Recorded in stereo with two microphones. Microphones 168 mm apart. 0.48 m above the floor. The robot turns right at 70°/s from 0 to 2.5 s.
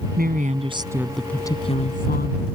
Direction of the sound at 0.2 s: 70° right.